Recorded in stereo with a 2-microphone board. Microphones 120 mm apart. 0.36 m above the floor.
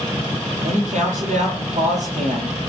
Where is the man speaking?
85° right, 9 m.